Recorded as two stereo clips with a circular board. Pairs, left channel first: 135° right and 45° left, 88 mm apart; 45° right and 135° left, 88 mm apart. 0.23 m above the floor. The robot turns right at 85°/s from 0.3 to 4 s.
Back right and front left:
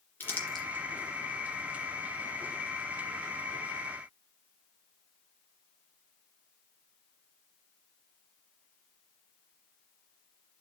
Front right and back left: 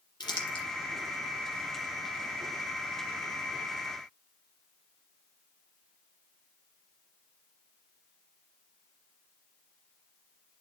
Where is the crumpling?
70° right, 2.5 m; by 0.7 s 40° right, 2.5 m.